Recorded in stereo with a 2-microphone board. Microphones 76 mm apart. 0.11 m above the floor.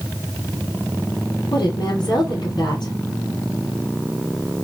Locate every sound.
1.5 s a woman speaking: 60° left (ahead or behind), 2.5 m